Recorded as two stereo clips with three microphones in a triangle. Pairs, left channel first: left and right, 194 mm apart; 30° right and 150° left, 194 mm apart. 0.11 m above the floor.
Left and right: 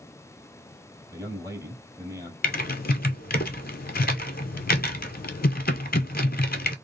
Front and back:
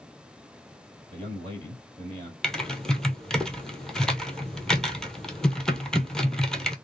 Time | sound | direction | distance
1.1 | a man speaking | 160° right | 2.5 m
2.4 | typing on a keyboard | 55° left | 0.6 m